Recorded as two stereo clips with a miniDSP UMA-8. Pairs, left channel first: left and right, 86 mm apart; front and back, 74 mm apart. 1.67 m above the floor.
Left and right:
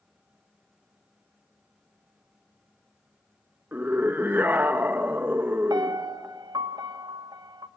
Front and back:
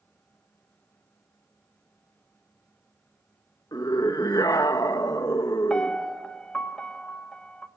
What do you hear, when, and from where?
3.7 s a scream: 25° right, 1.7 m
5.7 s a piano: 75° right, 1.2 m